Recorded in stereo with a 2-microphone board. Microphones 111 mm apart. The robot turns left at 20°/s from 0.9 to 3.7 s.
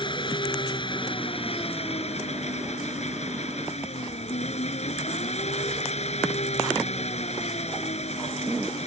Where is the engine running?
135° left; by 8.9 s 75° left.